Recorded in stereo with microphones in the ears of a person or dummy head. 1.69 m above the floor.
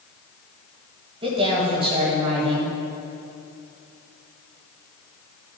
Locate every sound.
1.2 s a woman speaking: 25° right (ahead or behind), 2.5 m